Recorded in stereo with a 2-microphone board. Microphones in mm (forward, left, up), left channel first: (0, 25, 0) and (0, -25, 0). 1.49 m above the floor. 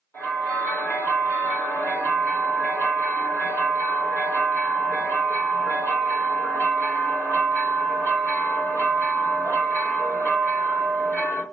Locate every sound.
0.1 s a bell: 55° left (ahead or behind), 2.0 m